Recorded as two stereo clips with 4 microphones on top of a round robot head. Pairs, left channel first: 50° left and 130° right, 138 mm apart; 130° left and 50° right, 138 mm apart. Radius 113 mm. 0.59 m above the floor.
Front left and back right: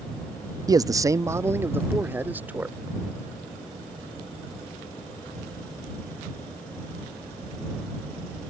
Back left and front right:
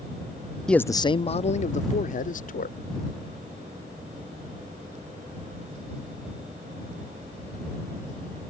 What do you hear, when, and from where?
0.7 s a man speaking: 145° right; by 2.8 s 150° left